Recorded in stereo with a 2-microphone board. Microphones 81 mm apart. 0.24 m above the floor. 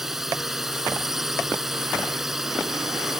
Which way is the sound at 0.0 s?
5° right (ahead or behind).